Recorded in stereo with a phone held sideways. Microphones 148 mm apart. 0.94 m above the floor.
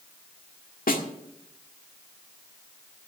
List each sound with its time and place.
0.9 s a snare drum: 75° left (ahead or behind), 1.6 m